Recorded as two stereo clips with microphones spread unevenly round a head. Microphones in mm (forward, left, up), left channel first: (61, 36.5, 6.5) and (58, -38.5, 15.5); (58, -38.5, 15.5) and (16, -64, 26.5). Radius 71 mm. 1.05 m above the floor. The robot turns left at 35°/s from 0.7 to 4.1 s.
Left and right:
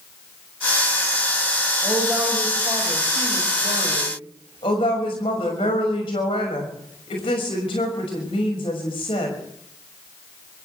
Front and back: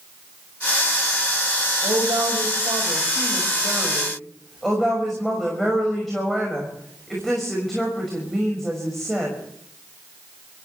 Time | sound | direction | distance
1.8 | a woman speaking | 160° right | 6 m